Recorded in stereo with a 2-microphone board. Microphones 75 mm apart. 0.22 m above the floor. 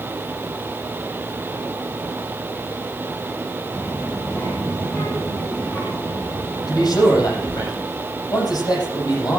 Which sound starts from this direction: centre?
A child speaking, at 3.7 s.